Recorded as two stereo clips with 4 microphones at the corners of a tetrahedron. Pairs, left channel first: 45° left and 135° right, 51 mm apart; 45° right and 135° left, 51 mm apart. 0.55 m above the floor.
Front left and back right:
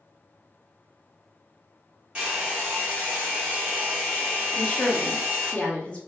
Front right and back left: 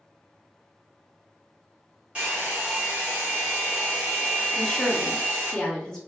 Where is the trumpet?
I don't hear a trumpet.